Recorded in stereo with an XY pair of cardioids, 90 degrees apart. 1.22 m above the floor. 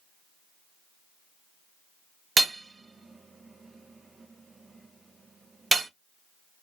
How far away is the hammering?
About 0.5 m.